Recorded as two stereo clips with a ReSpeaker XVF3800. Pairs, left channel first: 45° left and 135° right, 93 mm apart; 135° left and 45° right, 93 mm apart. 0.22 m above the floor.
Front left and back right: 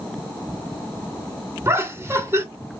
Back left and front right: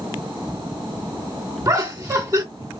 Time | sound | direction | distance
1.6 | laughter | 90° right | 1.3 m